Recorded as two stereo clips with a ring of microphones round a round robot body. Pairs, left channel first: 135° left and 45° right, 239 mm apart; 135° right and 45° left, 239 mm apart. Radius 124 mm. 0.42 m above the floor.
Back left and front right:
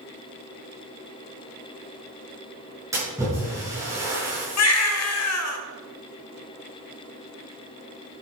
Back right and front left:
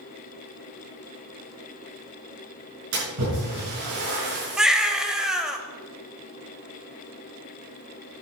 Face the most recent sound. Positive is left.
turn(degrees=135)